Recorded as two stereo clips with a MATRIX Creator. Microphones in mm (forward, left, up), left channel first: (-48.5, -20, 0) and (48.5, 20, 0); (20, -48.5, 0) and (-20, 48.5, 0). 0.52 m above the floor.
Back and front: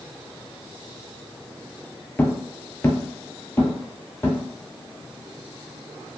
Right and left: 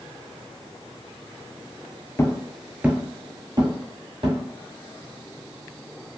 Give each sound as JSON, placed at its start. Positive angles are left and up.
{"t": 2.2, "sound": "footsteps", "azimuth_deg": -100, "distance_m": 0.5}